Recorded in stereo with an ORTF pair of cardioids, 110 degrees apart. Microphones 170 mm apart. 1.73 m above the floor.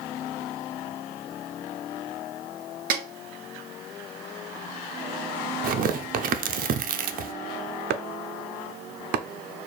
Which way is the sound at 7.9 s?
65° right.